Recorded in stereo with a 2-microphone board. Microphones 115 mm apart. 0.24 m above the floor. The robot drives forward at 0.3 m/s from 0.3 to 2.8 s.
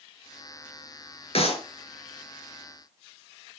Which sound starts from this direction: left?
A clap, at 1.4 s.